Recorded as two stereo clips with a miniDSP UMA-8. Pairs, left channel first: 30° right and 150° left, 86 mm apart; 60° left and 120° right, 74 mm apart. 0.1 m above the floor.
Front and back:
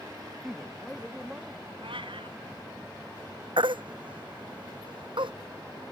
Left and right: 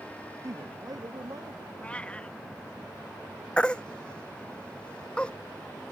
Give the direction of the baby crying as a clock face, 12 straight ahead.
7 o'clock.